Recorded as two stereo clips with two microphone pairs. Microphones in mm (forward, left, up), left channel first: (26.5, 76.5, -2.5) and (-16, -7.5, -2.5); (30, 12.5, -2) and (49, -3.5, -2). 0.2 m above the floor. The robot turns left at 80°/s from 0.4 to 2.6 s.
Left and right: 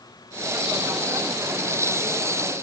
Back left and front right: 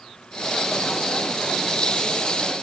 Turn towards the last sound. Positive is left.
No sound to turn to.